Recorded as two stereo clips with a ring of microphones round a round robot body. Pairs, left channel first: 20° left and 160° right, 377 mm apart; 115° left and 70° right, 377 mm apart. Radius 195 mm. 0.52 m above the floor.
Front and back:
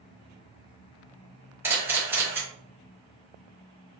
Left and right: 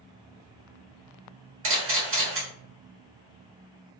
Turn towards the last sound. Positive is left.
turn(degrees=-80)